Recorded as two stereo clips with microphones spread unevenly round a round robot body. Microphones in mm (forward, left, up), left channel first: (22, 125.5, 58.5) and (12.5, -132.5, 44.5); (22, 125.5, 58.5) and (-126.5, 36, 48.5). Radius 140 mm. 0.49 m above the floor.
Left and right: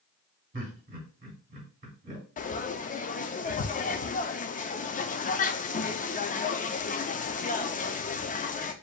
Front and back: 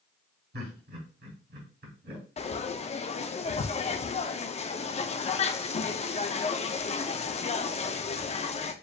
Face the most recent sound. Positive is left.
turn(degrees=50)